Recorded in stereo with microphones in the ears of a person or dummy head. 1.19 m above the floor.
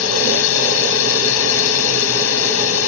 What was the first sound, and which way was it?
A drone, 80° left.